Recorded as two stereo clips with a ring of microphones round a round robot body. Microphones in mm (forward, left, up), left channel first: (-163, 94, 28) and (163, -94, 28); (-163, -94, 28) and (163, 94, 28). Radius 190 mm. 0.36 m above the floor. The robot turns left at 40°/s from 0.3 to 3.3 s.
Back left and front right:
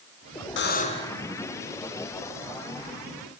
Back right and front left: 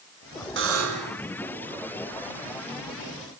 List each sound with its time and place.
0.6 s a buzzer: 90° left, 2.5 m; by 1.2 s 65° left, 2.5 m